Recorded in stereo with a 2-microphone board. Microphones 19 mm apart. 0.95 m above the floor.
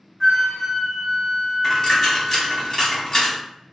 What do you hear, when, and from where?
0.2 s a flute: 15° right (ahead or behind), 0.7 m
1.6 s a dropped coin: 30° left (ahead or behind), 0.9 m